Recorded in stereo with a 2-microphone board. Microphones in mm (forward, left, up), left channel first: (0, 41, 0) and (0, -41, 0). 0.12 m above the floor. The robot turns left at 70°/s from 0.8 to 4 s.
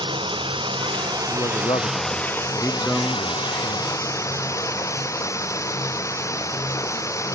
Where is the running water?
95° right; by 7.3 s 40° left.